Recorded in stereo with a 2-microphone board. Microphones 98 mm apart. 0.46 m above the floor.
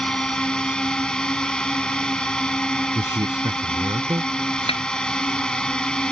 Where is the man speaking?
45° right (ahead or behind).